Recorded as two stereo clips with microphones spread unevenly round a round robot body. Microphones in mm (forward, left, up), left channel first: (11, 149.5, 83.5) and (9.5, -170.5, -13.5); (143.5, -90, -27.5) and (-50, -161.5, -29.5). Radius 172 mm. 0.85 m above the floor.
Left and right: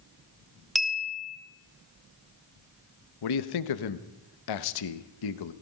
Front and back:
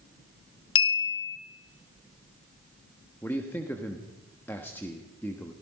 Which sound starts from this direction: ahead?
A clink, at 0.8 s.